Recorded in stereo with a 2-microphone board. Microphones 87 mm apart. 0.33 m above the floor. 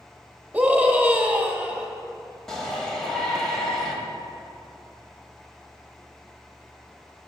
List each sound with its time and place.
0.5 s a scream: 20° right (ahead or behind), 1.1 m
2.5 s a shout: 5° left (ahead or behind), 1.8 m